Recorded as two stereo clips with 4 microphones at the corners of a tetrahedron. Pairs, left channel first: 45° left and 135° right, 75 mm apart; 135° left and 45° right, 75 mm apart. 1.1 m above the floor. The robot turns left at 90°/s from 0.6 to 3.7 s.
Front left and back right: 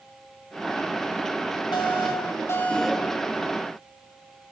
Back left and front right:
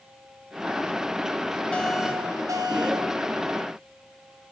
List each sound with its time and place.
1.7 s an alarm: 60° left, 3.5 m; by 3.1 s 65° right, 3.5 m